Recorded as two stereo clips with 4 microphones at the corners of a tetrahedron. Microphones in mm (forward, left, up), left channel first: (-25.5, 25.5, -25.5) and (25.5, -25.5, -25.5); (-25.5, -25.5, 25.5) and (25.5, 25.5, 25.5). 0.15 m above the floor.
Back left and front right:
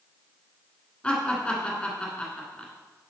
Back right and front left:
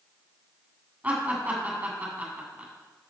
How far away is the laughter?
About 1.8 m.